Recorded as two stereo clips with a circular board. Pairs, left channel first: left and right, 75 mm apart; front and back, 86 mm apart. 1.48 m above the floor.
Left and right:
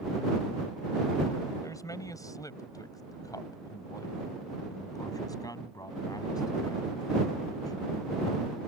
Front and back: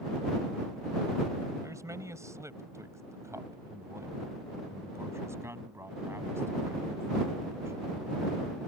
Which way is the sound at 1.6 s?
130° left.